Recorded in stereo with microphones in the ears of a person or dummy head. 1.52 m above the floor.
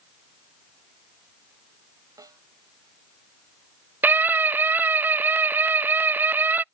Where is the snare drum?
20° right (ahead or behind).